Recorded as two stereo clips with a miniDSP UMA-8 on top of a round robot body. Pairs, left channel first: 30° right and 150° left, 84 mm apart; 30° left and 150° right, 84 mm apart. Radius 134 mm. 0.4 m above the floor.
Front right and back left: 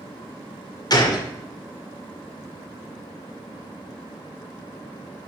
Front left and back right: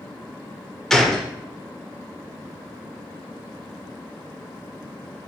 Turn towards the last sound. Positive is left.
turn(degrees=-55)